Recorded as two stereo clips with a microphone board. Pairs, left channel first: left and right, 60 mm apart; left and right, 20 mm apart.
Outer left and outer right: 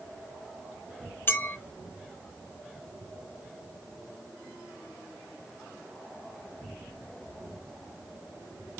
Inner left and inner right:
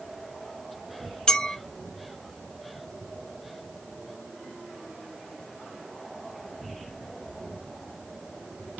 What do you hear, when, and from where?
1.3 s a clink: 40° left (ahead or behind), 1.0 m